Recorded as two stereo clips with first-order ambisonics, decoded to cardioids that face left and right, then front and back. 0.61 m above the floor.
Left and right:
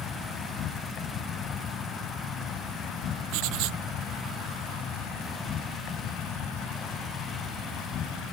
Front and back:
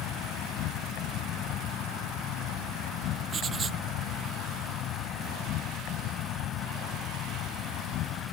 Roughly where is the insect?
Ahead left.